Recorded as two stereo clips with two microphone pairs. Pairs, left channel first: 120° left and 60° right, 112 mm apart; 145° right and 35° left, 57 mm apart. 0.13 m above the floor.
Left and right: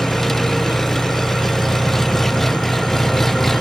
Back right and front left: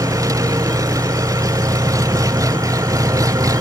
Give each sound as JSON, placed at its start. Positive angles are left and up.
{"t": 0.0, "sound": "an engine running", "azimuth_deg": 30}